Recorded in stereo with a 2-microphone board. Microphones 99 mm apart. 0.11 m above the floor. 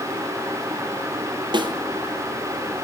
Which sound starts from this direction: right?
A snare drum, at 1.5 s.